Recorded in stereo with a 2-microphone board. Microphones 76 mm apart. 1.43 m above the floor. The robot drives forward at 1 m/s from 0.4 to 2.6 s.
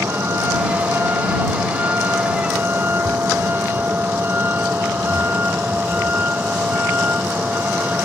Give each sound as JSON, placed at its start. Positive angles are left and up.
{"t": 0.0, "sound": "a vehicle", "side_deg": -30}